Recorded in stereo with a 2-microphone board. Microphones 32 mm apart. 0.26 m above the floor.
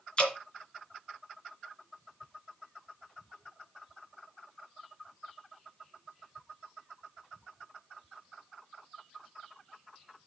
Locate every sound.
0.2 s dripping: 35° left (ahead or behind), 3 m